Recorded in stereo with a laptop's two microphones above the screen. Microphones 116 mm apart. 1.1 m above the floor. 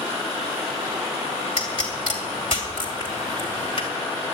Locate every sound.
1.6 s a pop: 45° left (ahead or behind), 2.5 m